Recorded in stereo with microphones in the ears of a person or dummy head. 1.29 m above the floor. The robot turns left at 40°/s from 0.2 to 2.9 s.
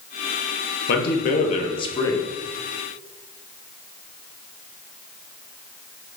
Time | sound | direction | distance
0.9 | a man speaking | 75° left | 0.6 m